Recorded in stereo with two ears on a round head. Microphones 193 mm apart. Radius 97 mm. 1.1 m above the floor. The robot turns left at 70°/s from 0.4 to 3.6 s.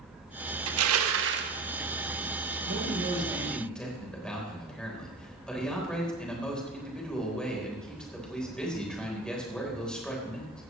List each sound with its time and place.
0.7 s crushing: 75° right, 1.1 m; by 1.5 s 135° right, 1.1 m
2.7 s a man speaking: 120° right, 4 m; by 10.6 s 175° left, 4 m